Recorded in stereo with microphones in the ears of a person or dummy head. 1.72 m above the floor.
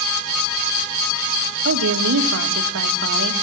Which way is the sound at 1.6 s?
85° right.